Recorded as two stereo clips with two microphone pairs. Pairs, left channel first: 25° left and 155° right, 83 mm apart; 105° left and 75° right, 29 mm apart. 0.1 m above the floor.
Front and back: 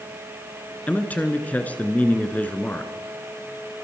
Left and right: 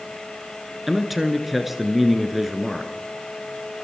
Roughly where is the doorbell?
I don't hear a doorbell.